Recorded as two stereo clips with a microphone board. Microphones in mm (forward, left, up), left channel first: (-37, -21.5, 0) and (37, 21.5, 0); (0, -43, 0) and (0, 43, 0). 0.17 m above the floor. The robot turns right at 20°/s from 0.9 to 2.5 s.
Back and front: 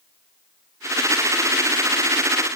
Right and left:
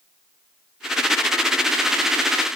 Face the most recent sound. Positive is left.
No sound to turn to.